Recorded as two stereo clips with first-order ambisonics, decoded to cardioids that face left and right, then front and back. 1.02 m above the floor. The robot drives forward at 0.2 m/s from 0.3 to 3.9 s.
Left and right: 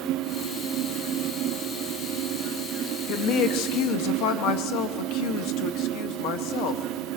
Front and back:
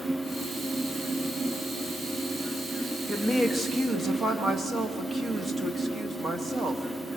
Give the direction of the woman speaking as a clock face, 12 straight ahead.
9 o'clock.